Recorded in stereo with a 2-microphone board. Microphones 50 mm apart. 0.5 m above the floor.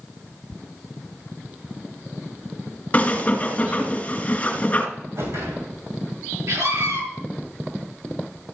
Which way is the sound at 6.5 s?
70° right (ahead or behind).